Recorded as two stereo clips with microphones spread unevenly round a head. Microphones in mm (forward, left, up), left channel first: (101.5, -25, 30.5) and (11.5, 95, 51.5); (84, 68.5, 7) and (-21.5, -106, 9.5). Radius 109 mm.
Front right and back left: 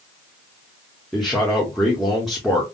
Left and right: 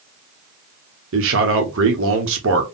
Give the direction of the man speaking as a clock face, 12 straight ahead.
5 o'clock.